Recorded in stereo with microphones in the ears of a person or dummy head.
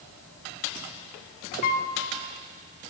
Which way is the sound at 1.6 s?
45° left (ahead or behind).